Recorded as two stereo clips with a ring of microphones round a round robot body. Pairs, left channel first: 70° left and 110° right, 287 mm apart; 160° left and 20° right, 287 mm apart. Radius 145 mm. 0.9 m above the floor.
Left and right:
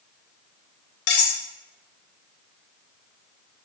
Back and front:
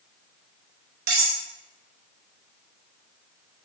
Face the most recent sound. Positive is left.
turn(degrees=40)